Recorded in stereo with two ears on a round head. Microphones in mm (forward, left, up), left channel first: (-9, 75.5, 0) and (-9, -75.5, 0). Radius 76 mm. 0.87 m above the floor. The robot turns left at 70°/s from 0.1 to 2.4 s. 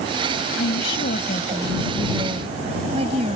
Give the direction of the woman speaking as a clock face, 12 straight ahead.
9 o'clock.